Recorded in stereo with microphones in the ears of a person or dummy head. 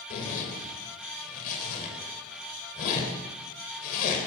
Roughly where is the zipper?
Left.